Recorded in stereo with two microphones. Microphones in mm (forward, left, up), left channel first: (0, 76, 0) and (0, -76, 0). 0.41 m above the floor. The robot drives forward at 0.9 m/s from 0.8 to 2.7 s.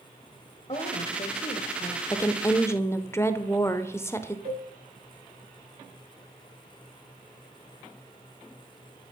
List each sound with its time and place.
0.7 s a woman speaking: 40° left (ahead or behind), 1.8 m; by 2.0 s 50° left (ahead or behind), 1.5 m
2.1 s a woman speaking: 20° left (ahead or behind), 0.8 m; by 4.3 s 15° left (ahead or behind), 0.9 m
4.5 s a cowbell: 70° right (ahead or behind), 6.5 m